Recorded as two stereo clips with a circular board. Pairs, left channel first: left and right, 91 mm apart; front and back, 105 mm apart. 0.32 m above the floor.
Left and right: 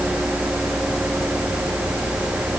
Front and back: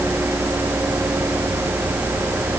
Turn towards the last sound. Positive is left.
No sound to turn to.